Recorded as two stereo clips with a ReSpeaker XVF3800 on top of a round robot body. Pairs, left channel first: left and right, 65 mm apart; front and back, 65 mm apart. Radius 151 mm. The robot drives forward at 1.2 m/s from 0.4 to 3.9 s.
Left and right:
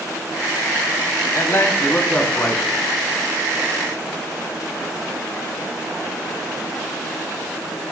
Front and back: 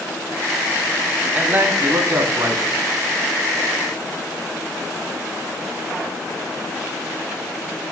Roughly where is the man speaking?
Behind left.